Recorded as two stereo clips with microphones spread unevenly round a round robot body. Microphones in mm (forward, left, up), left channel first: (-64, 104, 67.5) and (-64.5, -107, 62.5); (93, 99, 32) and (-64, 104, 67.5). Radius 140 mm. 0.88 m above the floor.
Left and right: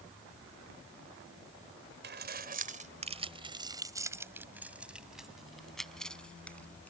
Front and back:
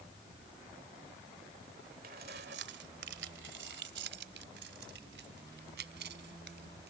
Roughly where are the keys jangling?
Behind right.